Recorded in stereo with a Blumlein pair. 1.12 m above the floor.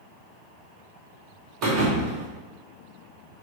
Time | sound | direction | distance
1.6 | a thud | 40° right | 1.1 m